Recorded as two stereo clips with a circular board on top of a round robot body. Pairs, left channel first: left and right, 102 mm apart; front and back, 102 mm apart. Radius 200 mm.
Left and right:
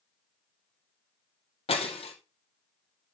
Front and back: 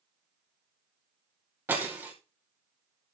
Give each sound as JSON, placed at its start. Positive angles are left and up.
{"t": 1.7, "sound": "breaking glass", "azimuth_deg": 110, "distance_m": 2.0}